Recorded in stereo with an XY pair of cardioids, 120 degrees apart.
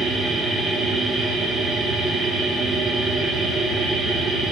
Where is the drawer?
No drawer in this recording.